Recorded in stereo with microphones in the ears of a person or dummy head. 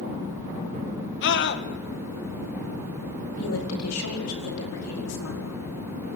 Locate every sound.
1.2 s a scream: 60° left (ahead or behind), 2 m
3.4 s a woman speaking: 85° left, 5 m